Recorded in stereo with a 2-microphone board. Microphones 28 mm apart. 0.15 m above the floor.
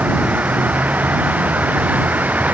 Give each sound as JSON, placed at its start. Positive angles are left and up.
{"t": 0.0, "sound": "a vehicle", "side_deg": -75}